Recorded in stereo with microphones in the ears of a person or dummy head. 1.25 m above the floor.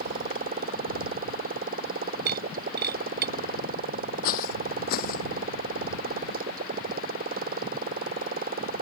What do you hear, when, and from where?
0.0 s a motorcycle: 45° right (ahead or behind)
2.3 s breaking glass: 55° right (ahead or behind)
4.2 s footsteps: 50° left (ahead or behind)